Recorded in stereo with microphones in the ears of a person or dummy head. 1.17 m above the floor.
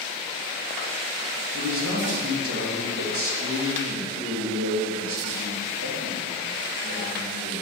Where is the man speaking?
75° right (ahead or behind), 2 m.